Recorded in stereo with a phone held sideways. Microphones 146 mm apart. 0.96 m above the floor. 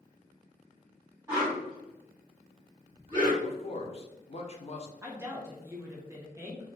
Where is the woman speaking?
15° right (ahead or behind), 0.6 m.